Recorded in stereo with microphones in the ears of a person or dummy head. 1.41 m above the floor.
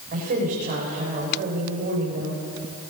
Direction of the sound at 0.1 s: 45° right (ahead or behind).